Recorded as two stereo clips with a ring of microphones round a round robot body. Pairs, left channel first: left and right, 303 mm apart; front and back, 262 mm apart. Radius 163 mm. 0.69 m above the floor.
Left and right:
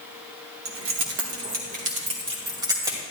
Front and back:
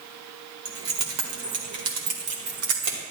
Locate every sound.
0.7 s keys jangling: 135° right, 1.5 m; by 3.0 s 170° right, 2.5 m